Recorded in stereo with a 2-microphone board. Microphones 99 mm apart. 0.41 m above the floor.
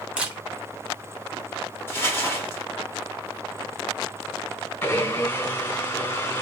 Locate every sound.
0.2 s a camera shutter: 15° right (ahead or behind), 0.8 m
1.9 s crumpling: 25° left (ahead or behind), 1.1 m
4.8 s a blender: 25° left (ahead or behind), 1.8 m